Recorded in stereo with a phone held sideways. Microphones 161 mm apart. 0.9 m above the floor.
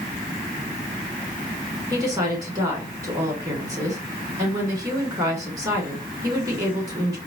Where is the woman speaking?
20° right (ahead or behind), 2.5 m.